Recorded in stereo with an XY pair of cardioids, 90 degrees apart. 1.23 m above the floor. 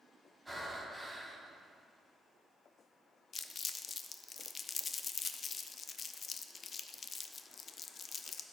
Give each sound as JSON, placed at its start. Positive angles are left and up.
{"t": 0.5, "sound": "breathing", "azimuth_deg": -5, "distance_m": 3.0}
{"t": 3.3, "sound": "crumpling", "azimuth_deg": 50, "distance_m": 0.6}